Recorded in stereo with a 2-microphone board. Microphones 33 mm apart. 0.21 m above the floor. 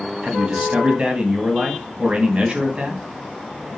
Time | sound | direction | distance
0.2 | a man speaking | 30° right (ahead or behind) | 1.8 m